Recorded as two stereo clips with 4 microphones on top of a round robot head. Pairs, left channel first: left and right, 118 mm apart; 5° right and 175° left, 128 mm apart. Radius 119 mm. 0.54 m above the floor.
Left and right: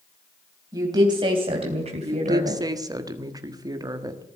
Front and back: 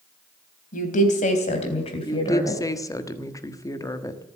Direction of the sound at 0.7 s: 25° right.